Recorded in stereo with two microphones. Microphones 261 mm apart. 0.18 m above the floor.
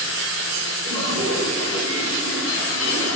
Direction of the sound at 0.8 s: 45° right (ahead or behind).